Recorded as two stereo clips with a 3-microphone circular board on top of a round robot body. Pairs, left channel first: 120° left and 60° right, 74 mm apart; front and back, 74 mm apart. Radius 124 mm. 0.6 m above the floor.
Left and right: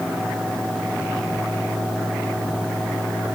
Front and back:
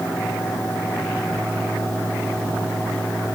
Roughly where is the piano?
No piano in this recording.